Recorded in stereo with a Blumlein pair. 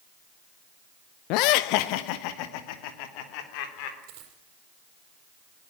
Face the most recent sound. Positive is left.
turn(degrees=-45)